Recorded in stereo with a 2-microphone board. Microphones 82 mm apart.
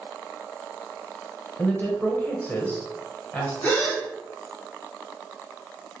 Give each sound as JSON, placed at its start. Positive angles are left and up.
{"t": 1.6, "sound": "a woman speaking", "side_deg": 20, "distance_m": 1.0}
{"t": 3.6, "sound": "a gasp", "side_deg": 20, "distance_m": 1.4}